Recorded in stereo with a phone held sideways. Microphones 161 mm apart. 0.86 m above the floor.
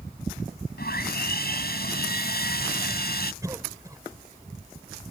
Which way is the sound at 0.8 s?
80° left.